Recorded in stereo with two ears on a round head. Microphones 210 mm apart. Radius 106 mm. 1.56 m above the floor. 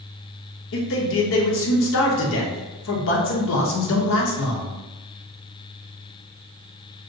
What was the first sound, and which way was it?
A man speaking, 60° left (ahead or behind).